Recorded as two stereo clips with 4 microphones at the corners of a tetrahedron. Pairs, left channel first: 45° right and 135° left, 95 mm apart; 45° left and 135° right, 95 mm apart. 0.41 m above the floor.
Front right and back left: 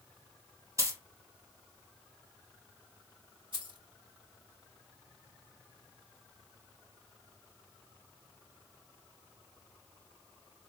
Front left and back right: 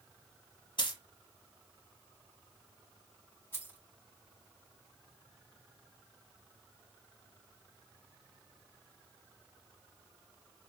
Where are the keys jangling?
110° left, 2.5 m.